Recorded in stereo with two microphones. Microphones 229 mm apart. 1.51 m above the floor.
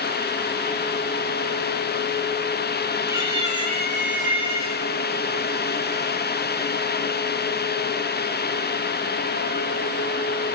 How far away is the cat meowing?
About 2 m.